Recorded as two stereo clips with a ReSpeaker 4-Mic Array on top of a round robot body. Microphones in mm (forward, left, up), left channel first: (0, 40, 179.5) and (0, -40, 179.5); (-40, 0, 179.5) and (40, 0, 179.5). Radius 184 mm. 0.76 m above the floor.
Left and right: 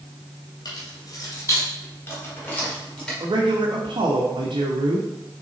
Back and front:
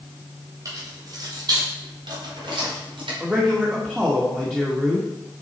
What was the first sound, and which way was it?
Keys jangling, 50° left.